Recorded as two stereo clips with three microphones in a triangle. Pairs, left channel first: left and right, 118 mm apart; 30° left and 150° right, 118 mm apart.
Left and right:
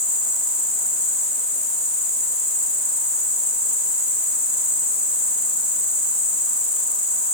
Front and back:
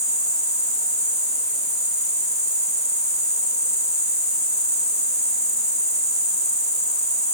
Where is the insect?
150° right, 4 m.